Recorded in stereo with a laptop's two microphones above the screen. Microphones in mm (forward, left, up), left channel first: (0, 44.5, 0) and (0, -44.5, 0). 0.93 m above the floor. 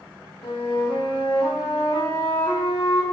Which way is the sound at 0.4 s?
75° left (ahead or behind).